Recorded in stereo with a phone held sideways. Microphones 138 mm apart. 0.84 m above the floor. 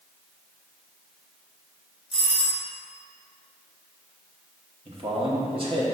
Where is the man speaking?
45° right (ahead or behind), 1.3 m.